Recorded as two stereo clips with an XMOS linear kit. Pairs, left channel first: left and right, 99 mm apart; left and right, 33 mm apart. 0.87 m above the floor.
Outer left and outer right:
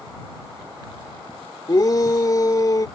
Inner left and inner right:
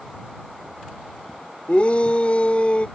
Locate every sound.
1.7 s a shout: 40° left (ahead or behind)